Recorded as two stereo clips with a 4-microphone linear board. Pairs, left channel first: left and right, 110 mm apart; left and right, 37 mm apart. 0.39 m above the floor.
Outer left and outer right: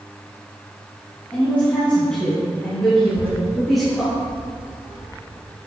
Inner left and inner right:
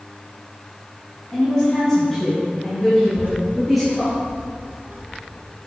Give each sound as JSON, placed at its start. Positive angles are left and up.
{"t": 1.3, "sound": "a woman speaking", "side_deg": 20, "distance_m": 3.5}
{"t": 3.0, "sound": "a child speaking", "side_deg": -60, "distance_m": 3.5}